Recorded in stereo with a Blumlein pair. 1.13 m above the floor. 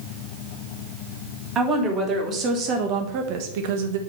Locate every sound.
1.6 s a woman speaking: 25° right, 1.9 m; by 4.0 s 60° right, 0.9 m